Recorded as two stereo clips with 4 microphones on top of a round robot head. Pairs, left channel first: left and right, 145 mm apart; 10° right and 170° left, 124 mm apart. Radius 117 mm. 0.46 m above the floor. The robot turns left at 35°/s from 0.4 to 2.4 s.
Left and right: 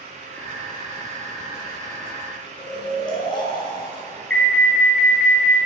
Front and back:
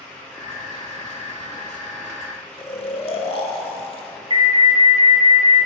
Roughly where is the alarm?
Behind.